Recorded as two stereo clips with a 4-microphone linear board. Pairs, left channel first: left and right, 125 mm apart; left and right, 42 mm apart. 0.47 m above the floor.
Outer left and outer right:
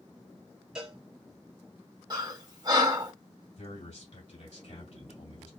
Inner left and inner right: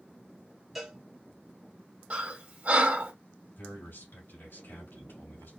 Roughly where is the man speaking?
Left.